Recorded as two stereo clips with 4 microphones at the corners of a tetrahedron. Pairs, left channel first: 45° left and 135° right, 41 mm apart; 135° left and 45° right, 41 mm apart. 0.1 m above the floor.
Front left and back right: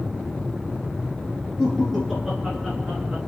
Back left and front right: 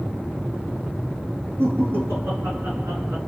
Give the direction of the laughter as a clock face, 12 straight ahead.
2 o'clock.